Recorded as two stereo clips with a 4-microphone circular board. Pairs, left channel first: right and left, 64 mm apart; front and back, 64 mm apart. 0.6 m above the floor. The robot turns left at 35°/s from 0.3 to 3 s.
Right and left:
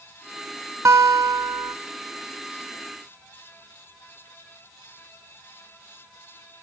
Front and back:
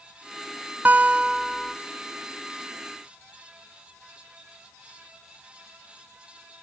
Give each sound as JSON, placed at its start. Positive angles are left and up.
{"t": 0.8, "sound": "a guitar", "azimuth_deg": 125, "distance_m": 0.6}